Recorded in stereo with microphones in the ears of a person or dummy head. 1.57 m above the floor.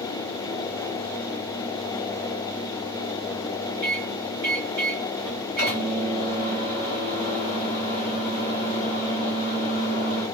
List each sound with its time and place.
3.8 s a microwave: 45° right (ahead or behind), 1.1 m